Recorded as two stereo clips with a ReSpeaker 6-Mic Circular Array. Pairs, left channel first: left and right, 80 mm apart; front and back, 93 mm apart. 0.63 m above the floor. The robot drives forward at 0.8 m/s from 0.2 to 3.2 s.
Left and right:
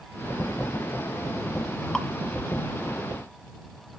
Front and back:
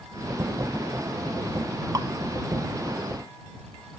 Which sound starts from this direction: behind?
Dripping, at 1.9 s.